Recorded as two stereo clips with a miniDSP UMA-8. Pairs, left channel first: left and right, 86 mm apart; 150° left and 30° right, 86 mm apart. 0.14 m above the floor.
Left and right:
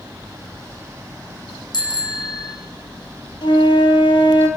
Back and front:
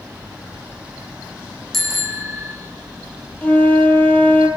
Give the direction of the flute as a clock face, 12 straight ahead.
9 o'clock.